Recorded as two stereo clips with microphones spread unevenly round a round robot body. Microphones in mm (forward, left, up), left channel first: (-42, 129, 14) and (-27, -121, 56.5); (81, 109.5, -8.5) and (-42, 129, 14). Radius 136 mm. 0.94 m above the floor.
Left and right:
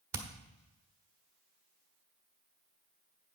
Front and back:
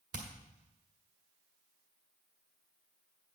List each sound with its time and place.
0.1 s hammering: 165° right, 1.3 m